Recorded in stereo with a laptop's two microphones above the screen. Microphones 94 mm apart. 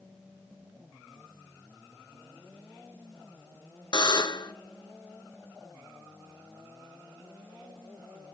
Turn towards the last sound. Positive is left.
turn(degrees=50)  # may be behind; listen again after turning